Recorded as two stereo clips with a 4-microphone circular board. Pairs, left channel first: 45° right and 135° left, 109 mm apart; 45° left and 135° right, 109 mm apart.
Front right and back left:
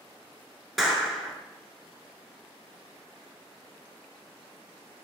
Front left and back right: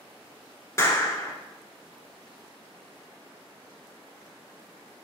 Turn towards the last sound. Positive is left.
turn(degrees=45)